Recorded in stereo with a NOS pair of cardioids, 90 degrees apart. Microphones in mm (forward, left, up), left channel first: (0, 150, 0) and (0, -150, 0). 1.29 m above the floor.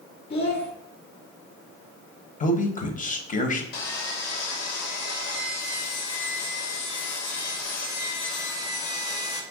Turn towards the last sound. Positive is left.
turn(degrees=55)